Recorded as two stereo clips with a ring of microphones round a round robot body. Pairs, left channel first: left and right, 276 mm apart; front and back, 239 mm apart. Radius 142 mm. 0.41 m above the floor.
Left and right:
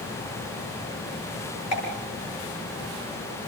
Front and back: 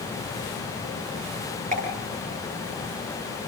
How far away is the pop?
About 9.5 m.